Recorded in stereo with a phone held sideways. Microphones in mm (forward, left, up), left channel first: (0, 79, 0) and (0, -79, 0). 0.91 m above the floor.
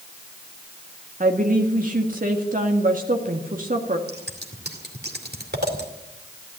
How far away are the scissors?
About 2.5 m.